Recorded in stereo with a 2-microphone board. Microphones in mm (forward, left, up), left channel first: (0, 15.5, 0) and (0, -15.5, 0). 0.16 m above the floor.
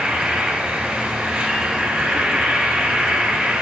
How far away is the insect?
About 1.7 m.